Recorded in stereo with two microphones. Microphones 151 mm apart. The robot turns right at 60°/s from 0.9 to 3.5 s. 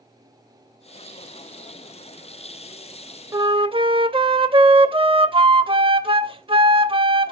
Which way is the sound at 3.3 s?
25° right (ahead or behind).